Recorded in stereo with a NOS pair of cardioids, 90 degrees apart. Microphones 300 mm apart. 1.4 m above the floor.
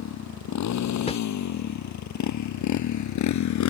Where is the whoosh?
20° left.